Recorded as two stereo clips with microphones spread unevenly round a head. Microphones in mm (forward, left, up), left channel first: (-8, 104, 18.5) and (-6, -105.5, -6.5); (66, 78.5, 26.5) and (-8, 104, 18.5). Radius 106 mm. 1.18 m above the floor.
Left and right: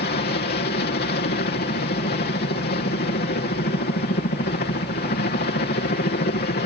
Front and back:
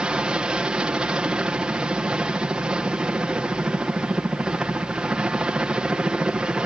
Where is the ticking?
No ticking in this recording.